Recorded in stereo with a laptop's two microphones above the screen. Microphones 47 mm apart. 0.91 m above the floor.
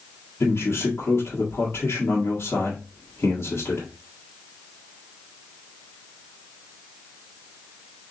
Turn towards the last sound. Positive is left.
turn(degrees=65)  # may be behind; listen again after turning